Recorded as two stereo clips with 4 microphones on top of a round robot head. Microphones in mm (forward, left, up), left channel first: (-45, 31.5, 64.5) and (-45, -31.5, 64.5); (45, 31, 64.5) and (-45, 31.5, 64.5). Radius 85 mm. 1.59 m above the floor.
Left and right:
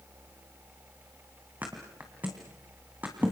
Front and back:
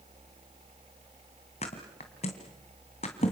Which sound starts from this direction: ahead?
A thud, at 1.6 s.